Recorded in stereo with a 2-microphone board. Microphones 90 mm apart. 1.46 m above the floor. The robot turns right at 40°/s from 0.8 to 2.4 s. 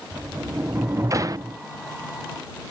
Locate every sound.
0.1 s a sliding door: 140° right; by 1.6 s 110° right